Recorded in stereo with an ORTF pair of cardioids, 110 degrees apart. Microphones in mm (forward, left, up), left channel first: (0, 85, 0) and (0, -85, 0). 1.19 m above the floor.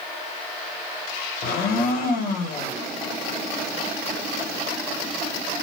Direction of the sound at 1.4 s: 65° left.